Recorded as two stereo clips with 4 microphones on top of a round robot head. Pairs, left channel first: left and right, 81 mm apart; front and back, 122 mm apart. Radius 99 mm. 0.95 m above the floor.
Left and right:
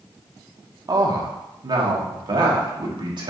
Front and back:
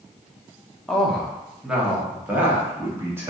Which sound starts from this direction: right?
A man speaking, at 0.9 s.